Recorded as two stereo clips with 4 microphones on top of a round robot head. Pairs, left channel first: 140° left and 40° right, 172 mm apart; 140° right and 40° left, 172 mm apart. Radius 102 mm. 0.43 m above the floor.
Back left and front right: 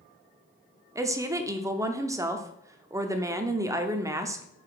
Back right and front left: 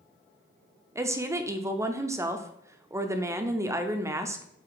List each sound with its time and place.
0.9 s a woman speaking: 5° right, 0.7 m